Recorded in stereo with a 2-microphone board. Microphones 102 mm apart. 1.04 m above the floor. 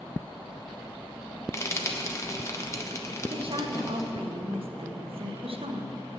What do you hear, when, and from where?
1.5 s frying: 30° left (ahead or behind), 1.0 m
3.3 s a woman speaking: 65° right (ahead or behind), 0.8 m